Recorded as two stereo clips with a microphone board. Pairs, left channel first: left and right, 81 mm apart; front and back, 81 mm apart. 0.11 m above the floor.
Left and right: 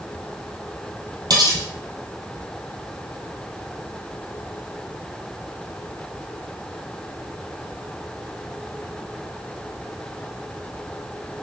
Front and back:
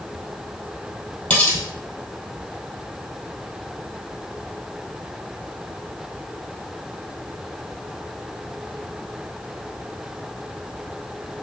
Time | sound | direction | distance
1.3 | cutlery clinking | 75° right | 1.6 m